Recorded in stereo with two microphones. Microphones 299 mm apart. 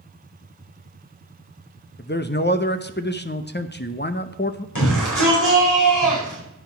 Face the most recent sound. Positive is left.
turn(degrees=75)  # may be behind; listen again after turning